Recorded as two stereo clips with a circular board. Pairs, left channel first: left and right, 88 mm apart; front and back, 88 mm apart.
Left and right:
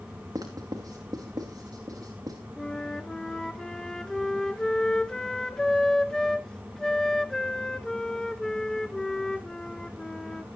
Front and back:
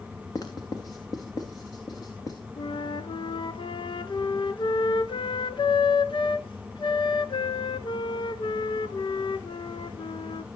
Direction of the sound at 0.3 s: 45° right.